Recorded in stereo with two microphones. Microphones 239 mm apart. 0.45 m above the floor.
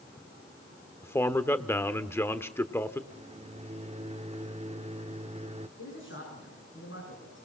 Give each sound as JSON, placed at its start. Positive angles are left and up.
{"t": 1.0, "sound": "a man speaking", "side_deg": 10, "distance_m": 1.1}
{"t": 3.1, "sound": "a microwave", "side_deg": -25, "distance_m": 0.8}
{"t": 5.8, "sound": "a man speaking", "side_deg": 55, "distance_m": 6.0}